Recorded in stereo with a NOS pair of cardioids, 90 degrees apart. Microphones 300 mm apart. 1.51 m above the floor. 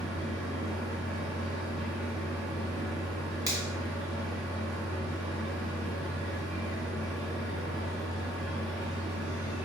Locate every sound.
0.0 s a machine running: straight ahead, 1.4 m
3.5 s a finger snap: 10° right, 1.5 m